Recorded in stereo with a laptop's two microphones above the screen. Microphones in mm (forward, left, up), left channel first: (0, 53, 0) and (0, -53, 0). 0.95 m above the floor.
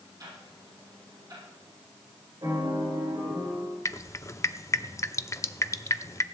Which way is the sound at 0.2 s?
40° right (ahead or behind).